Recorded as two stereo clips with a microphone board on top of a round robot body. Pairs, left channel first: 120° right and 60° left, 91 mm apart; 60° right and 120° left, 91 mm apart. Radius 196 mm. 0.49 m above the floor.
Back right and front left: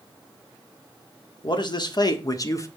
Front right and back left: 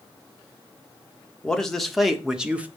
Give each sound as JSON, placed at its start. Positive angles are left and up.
{"t": 1.4, "sound": "a man speaking", "azimuth_deg": -140, "distance_m": 2.0}